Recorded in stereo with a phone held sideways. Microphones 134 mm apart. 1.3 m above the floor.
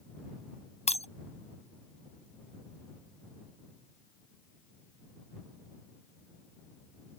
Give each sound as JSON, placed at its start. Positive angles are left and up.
{"t": 0.9, "sound": "breaking glass", "side_deg": 55}